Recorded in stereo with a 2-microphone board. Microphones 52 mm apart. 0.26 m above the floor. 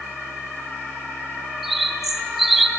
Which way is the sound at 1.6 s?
5° right (ahead or behind).